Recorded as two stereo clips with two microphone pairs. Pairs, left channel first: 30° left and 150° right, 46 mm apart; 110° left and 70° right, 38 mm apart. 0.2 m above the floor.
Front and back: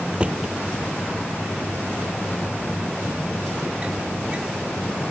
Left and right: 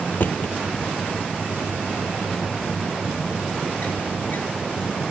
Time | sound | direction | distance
0.1 | a drawer | 145° left | ?